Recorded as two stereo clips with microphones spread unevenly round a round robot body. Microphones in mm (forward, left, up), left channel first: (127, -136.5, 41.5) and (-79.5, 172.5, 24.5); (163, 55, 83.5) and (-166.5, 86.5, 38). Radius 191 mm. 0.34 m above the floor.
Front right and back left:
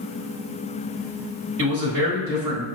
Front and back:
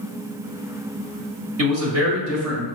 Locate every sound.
1.6 s a man speaking: 150° left, 1.5 m